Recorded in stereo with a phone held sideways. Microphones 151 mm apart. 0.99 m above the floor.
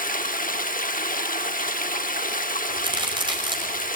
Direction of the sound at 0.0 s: 70° left (ahead or behind).